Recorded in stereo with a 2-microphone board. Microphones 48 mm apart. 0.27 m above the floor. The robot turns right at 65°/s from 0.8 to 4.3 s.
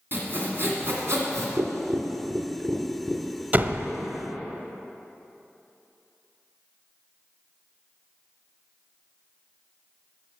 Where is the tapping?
85° right, 1.7 m; by 3.4 s 30° left (ahead or behind), 1.7 m.